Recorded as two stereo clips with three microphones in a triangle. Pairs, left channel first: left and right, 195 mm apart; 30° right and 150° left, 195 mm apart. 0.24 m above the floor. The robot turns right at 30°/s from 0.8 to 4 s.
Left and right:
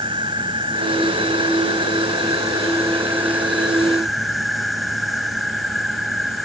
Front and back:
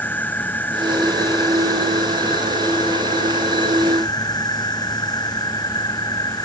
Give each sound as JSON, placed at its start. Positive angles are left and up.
{"t": 0.0, "sound": "an insect", "azimuth_deg": -95}